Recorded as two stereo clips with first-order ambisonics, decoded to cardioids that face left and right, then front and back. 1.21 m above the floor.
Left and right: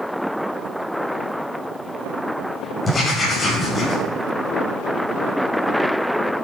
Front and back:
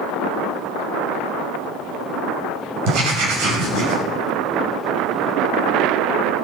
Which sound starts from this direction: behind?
Writing, at 2.9 s.